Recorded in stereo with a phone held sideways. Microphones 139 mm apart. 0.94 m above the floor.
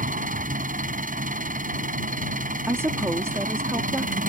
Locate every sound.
0.0 s an engine running: 75° right (ahead or behind)
2.7 s a woman speaking: 20° right (ahead or behind)